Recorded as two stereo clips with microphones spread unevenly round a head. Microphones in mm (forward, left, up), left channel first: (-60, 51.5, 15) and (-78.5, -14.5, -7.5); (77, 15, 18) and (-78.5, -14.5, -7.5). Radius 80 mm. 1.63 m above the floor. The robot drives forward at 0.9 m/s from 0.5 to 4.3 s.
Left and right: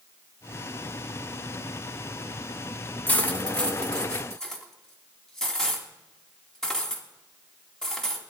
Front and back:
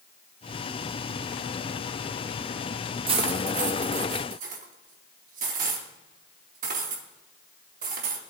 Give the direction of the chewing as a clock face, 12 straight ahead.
I don't hear chewing.